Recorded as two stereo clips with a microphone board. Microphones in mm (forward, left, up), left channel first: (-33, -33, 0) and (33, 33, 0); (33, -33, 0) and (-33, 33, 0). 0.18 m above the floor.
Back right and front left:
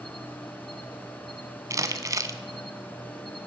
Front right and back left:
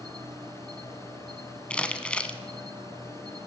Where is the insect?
135° left, 1.0 m.